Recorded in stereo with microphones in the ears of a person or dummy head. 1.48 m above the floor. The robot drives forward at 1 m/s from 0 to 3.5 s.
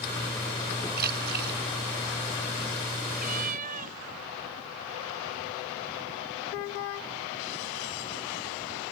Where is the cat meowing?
40° right (ahead or behind).